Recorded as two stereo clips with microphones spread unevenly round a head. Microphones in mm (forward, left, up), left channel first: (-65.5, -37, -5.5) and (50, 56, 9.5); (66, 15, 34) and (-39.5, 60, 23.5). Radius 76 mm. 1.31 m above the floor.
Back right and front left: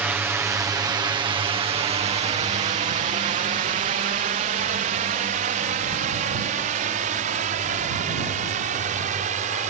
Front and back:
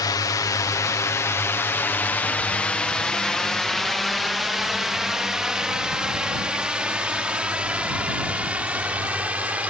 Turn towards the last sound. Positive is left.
turn(degrees=80)